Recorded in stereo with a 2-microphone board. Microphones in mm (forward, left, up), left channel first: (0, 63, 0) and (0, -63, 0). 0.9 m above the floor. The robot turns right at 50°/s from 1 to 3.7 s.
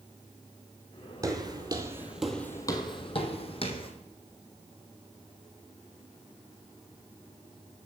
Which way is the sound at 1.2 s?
30° right (ahead or behind).